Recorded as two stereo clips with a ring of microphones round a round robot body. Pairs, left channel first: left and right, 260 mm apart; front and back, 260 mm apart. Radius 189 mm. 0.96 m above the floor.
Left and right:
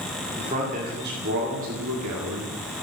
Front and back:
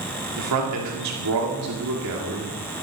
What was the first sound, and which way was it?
A man speaking, 160° right.